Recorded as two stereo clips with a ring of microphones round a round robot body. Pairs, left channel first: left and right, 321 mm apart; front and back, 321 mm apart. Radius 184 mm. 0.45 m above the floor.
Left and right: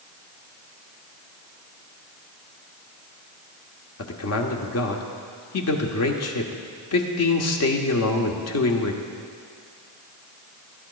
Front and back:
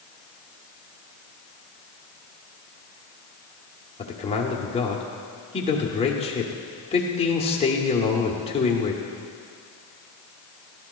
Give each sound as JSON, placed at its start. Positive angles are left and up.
{"t": 4.0, "sound": "a man speaking", "azimuth_deg": 70, "distance_m": 1.3}